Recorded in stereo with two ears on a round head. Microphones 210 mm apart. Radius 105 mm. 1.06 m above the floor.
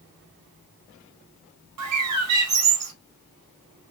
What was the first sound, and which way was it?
A bird, 80° right.